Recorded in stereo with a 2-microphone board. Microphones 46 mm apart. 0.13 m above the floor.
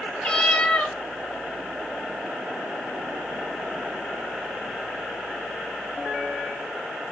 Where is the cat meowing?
25° left (ahead or behind), 0.9 m.